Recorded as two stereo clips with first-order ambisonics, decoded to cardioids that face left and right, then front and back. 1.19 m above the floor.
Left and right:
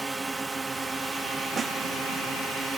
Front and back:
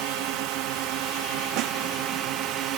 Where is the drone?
165° right.